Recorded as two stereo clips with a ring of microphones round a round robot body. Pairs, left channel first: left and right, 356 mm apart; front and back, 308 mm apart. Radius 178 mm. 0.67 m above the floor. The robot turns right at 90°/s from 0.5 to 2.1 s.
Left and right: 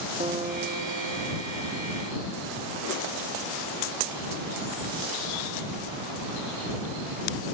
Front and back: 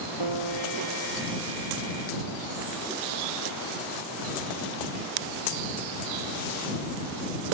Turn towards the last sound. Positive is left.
turn(degrees=-20)